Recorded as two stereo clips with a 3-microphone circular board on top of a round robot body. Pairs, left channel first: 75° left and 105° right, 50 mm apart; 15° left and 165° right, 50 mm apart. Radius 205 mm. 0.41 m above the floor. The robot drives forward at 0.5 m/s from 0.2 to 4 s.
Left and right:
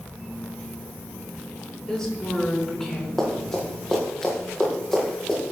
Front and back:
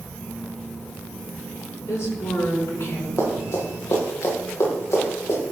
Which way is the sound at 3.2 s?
5° right.